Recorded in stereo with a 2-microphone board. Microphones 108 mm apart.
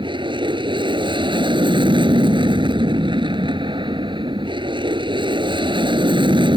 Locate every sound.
0.0 s an aircraft: 50° right (ahead or behind)